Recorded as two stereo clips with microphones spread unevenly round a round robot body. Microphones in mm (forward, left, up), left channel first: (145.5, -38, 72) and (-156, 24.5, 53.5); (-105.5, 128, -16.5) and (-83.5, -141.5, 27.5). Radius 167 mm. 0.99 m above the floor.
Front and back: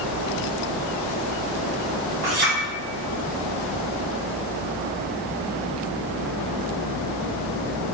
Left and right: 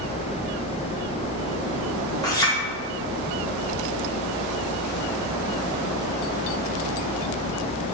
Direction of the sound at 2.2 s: 170° left.